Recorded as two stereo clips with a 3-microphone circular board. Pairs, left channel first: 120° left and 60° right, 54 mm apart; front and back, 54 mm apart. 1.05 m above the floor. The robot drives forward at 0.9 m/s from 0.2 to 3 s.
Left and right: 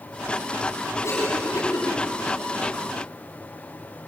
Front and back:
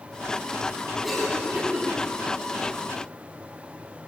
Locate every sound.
1.0 s a cough: 85° left, 9.5 m; by 1.9 s 90° left, 9.5 m